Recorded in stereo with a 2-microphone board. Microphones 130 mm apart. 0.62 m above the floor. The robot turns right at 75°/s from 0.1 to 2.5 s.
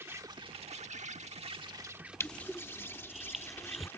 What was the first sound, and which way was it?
An insect, 160° right.